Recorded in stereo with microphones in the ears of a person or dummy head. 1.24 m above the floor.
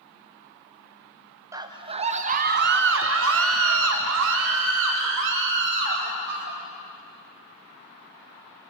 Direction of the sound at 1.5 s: 20° right (ahead or behind).